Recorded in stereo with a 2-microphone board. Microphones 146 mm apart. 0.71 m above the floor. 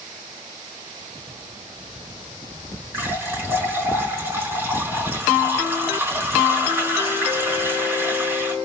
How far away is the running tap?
About 5.5 m.